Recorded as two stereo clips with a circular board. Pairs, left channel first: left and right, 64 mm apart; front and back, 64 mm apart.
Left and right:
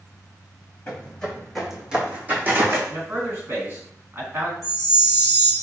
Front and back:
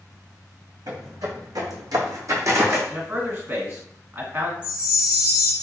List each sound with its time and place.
0.9 s footsteps: 160° left, 1.1 m; by 2.8 s 135° right, 1.0 m
2.9 s a man speaking: 130° right, 2.0 m
4.6 s a chime: 110° right, 1.0 m